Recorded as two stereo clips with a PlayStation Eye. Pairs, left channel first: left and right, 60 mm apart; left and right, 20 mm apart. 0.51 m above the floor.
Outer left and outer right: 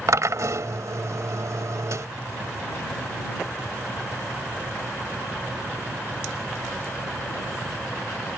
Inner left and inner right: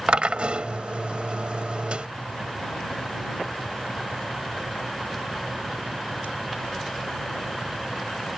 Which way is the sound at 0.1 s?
60° right (ahead or behind).